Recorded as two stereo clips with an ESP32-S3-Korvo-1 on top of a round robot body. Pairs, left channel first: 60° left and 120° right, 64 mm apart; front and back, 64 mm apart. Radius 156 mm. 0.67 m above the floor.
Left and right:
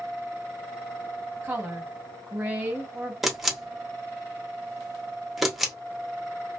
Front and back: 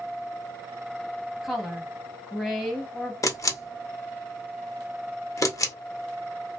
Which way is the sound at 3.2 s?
35° right.